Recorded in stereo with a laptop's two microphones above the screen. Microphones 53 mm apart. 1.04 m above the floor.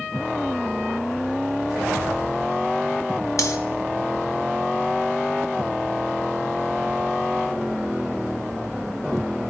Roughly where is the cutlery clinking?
Left.